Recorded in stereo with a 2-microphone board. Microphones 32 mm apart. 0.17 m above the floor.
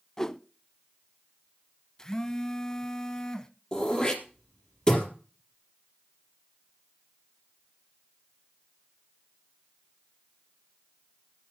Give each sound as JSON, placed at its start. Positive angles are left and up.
{"t": 0.2, "sound": "a whoosh", "side_deg": 20, "distance_m": 0.5}
{"t": 2.0, "sound": "a phone buzzing", "side_deg": 25, "distance_m": 0.8}
{"t": 3.7, "sound": "throat clearing", "side_deg": 25, "distance_m": 3.5}